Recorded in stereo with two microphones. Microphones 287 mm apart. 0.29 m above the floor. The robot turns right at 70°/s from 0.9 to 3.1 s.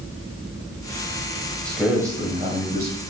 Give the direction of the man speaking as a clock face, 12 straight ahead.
6 o'clock.